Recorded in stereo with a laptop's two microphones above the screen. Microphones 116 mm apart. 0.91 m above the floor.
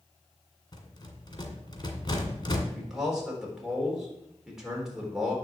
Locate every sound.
0.7 s a rattle: 40° left (ahead or behind), 1.8 m
2.7 s a man speaking: 5° right (ahead or behind), 3.5 m